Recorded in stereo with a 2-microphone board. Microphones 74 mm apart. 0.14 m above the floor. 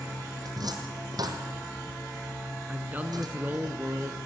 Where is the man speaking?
25° right (ahead or behind), 1.6 m.